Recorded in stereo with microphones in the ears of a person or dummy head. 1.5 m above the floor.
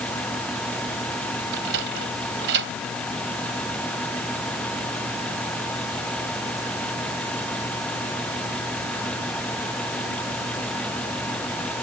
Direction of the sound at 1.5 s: 65° right (ahead or behind).